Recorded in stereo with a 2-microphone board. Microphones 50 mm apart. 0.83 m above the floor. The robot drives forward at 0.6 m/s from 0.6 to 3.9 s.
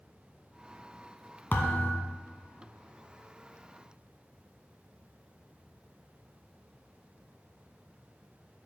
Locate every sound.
1.5 s a thud: 45° left (ahead or behind), 1.2 m; by 2.0 s 50° left (ahead or behind), 1.0 m